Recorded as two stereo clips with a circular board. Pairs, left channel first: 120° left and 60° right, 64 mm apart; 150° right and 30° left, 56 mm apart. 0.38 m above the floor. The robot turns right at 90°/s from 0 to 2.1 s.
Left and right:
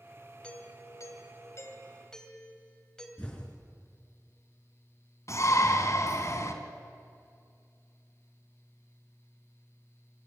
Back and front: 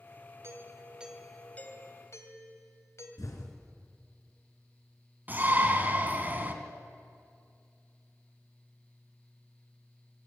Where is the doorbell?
50° left, 3 m; by 3.1 s 160° right, 3 m.